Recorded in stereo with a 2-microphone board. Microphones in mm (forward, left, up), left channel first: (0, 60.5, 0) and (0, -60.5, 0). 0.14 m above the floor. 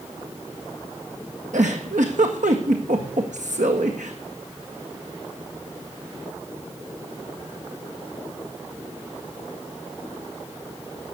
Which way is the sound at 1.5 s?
80° right.